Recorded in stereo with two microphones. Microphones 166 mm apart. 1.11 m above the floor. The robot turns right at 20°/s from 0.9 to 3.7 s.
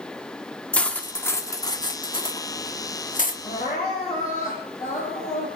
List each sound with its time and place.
0.7 s cutlery clinking: 10° left (ahead or behind), 1.3 m; by 3.3 s 55° left (ahead or behind), 1.3 m
3.4 s crying: 50° left (ahead or behind), 10 m; by 5.5 s 55° left (ahead or behind), 10 m